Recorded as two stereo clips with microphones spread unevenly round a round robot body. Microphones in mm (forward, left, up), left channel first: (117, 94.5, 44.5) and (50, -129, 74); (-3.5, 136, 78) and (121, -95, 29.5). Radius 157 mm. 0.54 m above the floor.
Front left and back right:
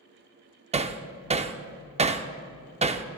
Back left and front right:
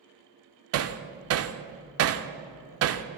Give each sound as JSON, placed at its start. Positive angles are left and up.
{"t": 0.7, "sound": "hammering", "azimuth_deg": -40, "distance_m": 0.7}